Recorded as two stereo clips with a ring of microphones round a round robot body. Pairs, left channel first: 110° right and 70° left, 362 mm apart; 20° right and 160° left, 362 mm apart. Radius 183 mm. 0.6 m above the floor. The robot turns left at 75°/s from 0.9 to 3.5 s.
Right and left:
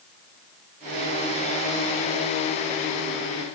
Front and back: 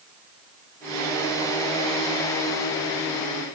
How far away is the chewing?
I don't hear chewing.